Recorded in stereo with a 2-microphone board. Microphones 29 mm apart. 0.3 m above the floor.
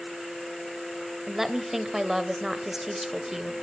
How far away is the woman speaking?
About 1.2 m.